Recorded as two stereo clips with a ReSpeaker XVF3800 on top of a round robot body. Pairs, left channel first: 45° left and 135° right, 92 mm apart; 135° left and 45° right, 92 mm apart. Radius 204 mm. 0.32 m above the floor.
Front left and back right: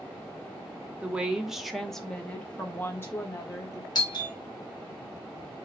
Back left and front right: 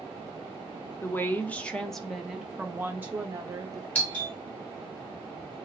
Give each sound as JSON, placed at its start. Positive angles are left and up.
{"t": 1.0, "sound": "a woman speaking", "azimuth_deg": 165, "distance_m": 1.2}
{"t": 4.0, "sound": "a doorbell", "azimuth_deg": 65, "distance_m": 2.5}